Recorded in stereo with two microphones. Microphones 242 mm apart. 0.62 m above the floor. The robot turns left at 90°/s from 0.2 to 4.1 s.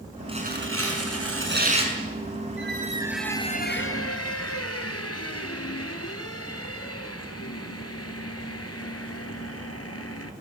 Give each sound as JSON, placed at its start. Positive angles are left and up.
{"t": 0.3, "sound": "tearing paper", "azimuth_deg": -20, "distance_m": 6.5}
{"t": 2.6, "sound": "a squeak", "azimuth_deg": -125, "distance_m": 2.0}